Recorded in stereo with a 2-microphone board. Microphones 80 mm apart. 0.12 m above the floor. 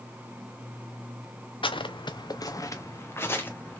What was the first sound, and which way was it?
Footsteps, 80° left.